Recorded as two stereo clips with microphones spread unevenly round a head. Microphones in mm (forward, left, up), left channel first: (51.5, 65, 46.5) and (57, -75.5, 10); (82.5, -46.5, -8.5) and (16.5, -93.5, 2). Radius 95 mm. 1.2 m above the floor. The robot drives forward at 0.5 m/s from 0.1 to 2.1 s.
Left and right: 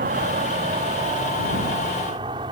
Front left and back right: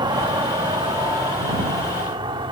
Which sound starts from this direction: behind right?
An insect, at 0.0 s.